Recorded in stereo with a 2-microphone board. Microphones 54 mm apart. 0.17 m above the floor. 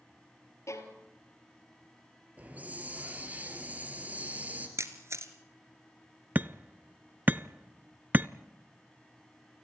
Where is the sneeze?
No sneeze in this recording.